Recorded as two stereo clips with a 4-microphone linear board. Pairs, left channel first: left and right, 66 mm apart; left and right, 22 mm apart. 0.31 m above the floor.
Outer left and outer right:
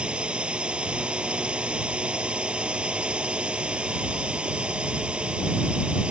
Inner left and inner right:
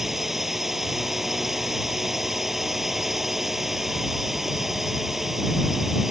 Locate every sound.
0.0 s a drone: 15° right (ahead or behind)